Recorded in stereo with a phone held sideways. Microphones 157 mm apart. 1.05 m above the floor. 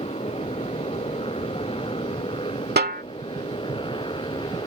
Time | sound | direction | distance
0.0 | a motorcycle | 35° left (ahead or behind) | ?
2.8 | a snare drum | 80° right | ?